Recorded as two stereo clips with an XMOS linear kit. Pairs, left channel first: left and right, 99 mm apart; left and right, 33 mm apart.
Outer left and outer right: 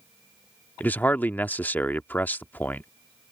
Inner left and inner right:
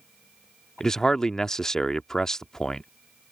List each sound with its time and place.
0.8 s a man speaking: 20° left (ahead or behind)